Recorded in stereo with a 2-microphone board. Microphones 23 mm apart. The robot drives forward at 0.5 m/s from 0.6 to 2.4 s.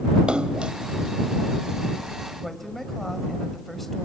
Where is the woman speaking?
5° left (ahead or behind), 2 m.